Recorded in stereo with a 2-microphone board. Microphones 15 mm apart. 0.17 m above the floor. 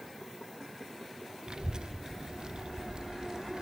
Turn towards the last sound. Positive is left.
turn(degrees=-60)  # may be behind; listen again after turning